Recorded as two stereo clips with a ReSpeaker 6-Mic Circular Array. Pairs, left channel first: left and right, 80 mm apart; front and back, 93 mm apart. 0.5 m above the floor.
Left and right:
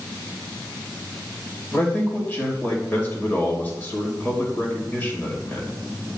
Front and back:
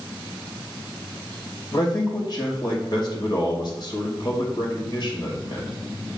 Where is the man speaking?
25° left, 2.5 m.